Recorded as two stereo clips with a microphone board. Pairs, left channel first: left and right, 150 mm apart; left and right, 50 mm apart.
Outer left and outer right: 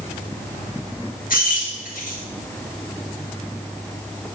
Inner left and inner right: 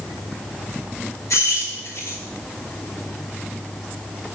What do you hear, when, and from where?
1.3 s keys jangling: 70° left (ahead or behind), 1.7 m